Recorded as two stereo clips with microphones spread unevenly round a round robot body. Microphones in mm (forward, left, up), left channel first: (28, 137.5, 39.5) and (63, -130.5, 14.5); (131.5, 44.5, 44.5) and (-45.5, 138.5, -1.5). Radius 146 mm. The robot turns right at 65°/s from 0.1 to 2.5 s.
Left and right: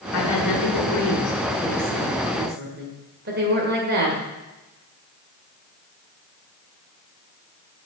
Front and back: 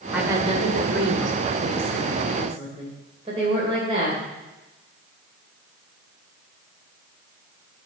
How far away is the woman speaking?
About 2 m.